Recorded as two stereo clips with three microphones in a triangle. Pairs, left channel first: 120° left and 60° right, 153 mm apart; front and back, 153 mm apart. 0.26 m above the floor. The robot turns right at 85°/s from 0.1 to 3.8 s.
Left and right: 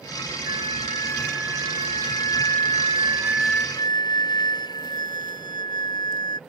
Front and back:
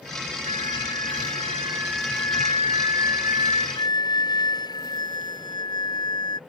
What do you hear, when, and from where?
0.5 s a flute: 135° left; by 6.4 s 60° left